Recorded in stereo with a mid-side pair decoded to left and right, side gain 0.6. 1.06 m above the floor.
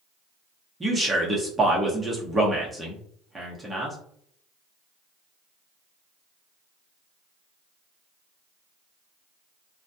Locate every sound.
0.8 s a man speaking: 15° right, 0.9 m